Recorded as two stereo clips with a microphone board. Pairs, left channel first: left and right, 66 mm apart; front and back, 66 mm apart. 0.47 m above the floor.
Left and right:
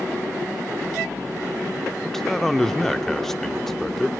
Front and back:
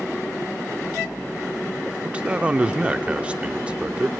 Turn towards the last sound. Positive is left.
turn(degrees=165)